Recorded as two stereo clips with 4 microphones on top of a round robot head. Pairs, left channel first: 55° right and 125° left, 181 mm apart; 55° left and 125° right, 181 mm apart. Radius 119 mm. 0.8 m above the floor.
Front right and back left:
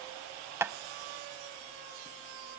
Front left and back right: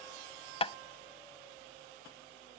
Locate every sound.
0.6 s tapping: 60° left, 0.6 m